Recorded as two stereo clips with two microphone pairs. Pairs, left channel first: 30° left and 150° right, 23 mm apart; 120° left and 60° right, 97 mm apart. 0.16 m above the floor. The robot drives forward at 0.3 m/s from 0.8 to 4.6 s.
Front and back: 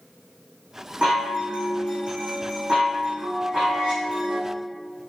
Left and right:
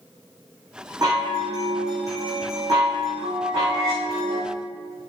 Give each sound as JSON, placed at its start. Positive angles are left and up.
{"t": 1.0, "sound": "a chime", "azimuth_deg": -110, "distance_m": 4.0}